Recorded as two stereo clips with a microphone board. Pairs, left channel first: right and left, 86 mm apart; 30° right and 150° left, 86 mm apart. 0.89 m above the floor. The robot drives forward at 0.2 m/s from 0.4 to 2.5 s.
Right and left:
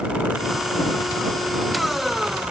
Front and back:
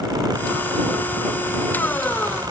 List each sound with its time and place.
Only background noise.